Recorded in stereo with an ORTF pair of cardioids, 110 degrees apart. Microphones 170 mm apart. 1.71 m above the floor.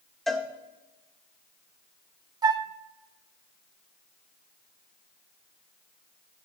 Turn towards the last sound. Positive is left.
turn(degrees=-25)